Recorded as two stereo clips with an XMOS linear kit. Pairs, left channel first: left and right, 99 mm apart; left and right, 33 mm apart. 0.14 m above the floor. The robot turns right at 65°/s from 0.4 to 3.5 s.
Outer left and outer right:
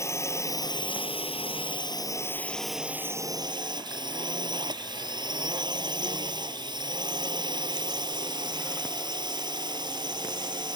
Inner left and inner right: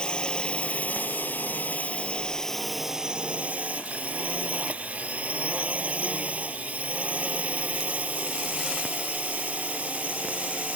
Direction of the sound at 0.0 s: 30° left.